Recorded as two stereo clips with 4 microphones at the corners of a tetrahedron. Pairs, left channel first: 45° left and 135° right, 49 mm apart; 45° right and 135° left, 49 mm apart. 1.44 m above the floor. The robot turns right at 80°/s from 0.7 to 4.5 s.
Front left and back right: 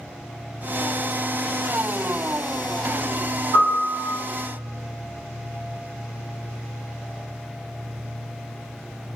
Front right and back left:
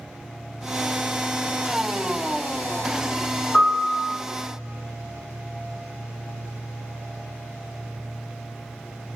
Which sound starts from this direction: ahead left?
A piano, at 3.5 s.